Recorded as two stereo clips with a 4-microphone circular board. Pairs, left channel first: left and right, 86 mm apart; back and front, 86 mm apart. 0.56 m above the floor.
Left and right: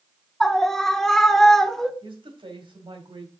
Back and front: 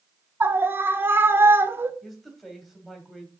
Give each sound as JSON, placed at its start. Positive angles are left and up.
{"t": 0.4, "sound": "a scream", "azimuth_deg": 15, "distance_m": 0.9}
{"t": 2.0, "sound": "a woman speaking", "azimuth_deg": -90, "distance_m": 2.5}